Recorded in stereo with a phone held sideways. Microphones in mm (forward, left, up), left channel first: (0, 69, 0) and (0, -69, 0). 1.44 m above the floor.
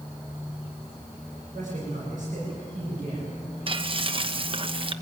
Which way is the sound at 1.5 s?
65° right (ahead or behind).